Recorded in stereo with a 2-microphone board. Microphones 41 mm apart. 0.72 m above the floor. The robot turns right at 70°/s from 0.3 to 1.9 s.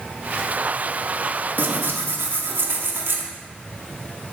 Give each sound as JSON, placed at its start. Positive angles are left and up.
{"t": 1.6, "sound": "tearing paper", "side_deg": -55, "distance_m": 1.2}